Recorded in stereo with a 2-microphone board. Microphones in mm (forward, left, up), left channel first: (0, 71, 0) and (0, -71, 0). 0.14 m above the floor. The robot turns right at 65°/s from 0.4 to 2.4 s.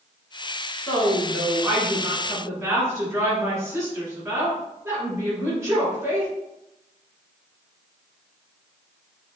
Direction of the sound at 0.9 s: 10° left (ahead or behind).